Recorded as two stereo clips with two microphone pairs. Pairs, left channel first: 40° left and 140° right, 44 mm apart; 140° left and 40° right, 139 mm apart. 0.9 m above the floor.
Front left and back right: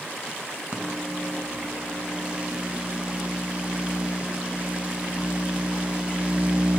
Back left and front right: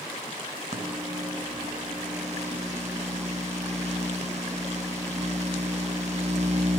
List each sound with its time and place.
0.7 s a microwave: 75° right, 1.0 m